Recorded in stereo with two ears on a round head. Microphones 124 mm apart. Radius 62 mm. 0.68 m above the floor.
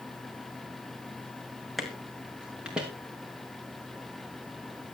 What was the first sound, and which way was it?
Footsteps, centre (ahead or behind).